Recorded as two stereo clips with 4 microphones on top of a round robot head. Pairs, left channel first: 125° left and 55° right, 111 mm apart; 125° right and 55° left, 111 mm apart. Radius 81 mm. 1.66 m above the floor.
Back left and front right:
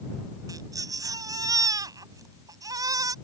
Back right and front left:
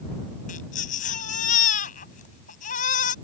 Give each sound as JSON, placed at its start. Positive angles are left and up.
{"t": 0.5, "sound": "a baby crying", "azimuth_deg": -115}